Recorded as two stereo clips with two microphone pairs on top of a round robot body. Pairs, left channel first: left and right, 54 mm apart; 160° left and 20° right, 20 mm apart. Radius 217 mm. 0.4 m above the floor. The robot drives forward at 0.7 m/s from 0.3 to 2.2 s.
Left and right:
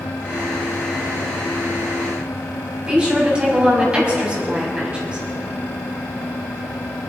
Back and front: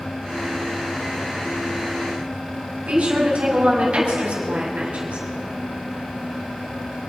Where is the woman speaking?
20° right, 5.5 m.